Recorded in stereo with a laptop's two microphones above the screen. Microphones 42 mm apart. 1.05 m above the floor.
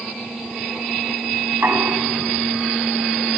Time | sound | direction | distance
1.5 | knocking | 55° right (ahead or behind) | 8 m